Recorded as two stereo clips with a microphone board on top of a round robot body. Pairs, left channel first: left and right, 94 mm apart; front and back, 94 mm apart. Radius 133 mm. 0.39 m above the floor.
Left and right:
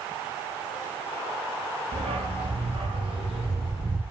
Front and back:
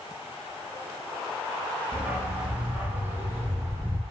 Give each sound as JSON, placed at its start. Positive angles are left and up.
{"t": 1.9, "sound": "a dog barking", "azimuth_deg": -105, "distance_m": 5.0}